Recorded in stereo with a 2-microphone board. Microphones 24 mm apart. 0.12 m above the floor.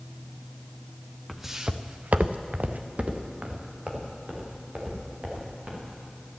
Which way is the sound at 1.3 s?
Centre (ahead or behind).